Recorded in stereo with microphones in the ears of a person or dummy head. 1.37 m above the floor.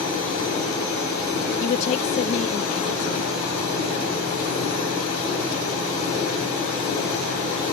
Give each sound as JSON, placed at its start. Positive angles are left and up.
{"t": 1.6, "sound": "a woman speaking", "side_deg": 45}